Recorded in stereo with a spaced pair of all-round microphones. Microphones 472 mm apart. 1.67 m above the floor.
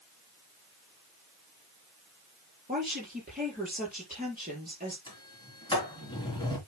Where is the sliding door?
10° left (ahead or behind), 3.5 m.